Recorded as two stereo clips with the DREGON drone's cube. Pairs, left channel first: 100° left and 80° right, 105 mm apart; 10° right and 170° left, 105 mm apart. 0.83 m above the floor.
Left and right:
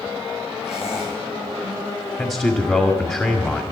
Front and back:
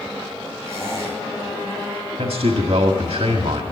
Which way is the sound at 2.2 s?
170° left.